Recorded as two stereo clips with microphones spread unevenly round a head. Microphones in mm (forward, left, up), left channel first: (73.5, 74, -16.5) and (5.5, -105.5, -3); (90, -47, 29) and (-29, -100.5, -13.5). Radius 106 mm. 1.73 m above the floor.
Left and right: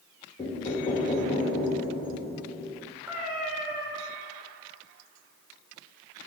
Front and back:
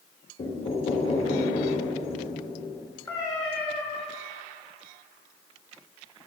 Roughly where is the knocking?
Ahead.